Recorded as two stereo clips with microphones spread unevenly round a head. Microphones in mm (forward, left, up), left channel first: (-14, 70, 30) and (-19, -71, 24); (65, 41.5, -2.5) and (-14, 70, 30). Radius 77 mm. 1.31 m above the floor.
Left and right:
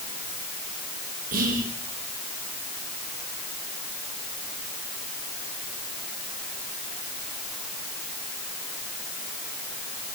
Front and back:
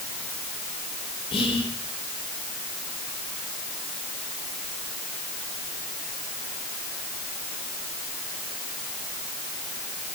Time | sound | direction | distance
1.3 | whispering | 60° right | 5.5 m